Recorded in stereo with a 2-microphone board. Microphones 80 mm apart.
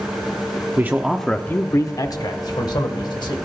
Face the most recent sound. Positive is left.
turn(degrees=70)  # may be behind; listen again after turning